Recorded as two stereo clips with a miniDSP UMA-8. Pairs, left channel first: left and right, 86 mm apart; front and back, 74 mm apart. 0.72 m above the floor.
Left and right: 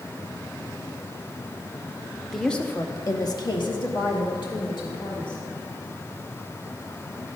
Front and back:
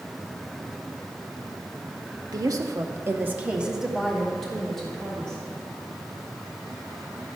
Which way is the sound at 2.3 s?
Straight behind.